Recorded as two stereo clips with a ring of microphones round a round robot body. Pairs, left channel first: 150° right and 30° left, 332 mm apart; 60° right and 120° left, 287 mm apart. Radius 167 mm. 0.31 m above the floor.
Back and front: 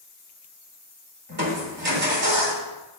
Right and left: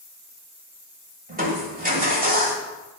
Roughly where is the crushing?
Left.